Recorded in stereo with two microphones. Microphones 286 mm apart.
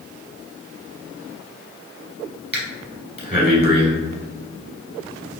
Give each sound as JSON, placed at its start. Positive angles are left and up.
{"t": 2.5, "sound": "breathing", "side_deg": -20, "distance_m": 1.2}